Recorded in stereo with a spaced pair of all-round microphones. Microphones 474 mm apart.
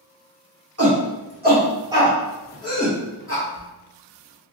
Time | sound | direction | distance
0.8 | a shout | 30° right (ahead or behind) | 1.8 m
3.5 | a squeak | 25° right (ahead or behind) | 0.9 m